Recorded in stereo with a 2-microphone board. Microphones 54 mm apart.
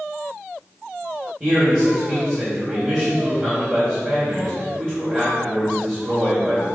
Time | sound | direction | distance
1.4 | a man speaking | 30° right (ahead or behind) | 2.5 m